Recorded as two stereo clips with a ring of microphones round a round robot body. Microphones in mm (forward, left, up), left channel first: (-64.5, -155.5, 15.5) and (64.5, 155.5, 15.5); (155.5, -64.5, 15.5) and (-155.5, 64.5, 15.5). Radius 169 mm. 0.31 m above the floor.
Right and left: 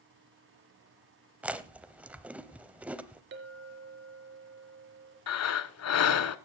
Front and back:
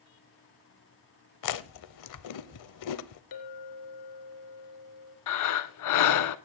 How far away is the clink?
About 3.5 m.